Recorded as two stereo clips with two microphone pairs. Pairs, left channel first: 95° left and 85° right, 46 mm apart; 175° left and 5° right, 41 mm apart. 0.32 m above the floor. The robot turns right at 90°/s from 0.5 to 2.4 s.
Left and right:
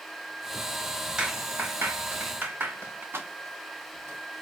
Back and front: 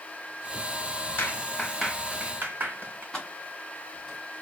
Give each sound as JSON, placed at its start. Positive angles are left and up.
{"t": 1.2, "sound": "a clap", "azimuth_deg": -160, "distance_m": 2.5}
{"t": 3.1, "sound": "keys jangling", "azimuth_deg": -110, "distance_m": 1.9}